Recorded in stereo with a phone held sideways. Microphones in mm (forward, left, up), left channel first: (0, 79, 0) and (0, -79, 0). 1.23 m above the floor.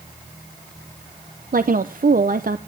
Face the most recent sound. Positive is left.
turn(degrees=-60)  # may be behind; listen again after turning